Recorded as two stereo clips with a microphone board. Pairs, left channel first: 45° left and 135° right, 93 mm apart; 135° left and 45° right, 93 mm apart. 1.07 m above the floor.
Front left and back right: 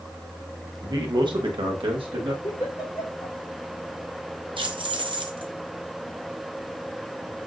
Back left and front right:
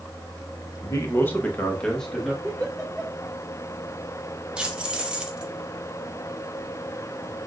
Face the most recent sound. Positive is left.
turn(degrees=-125)